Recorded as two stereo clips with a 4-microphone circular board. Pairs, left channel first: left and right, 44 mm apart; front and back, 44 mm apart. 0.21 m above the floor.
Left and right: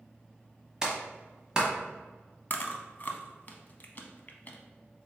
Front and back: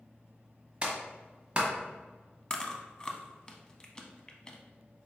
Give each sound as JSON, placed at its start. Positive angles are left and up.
{"t": 0.8, "sound": "a clap", "azimuth_deg": -140, "distance_m": 1.1}
{"t": 2.5, "sound": "chewing", "azimuth_deg": 60, "distance_m": 0.6}